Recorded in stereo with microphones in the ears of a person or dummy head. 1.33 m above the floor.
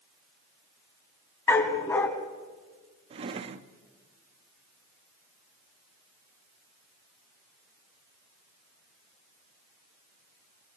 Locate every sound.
1.5 s a dog barking: 15° left (ahead or behind), 3 m
3.1 s a drawer: 35° right (ahead or behind), 1.1 m